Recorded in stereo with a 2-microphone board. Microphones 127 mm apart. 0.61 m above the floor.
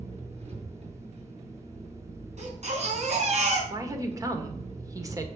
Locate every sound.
0.0 s an engine running: 60° right (ahead or behind), 4.5 m
2.4 s a baby crying: 60° right (ahead or behind), 4.5 m
3.7 s a woman speaking: 25° right (ahead or behind), 1.9 m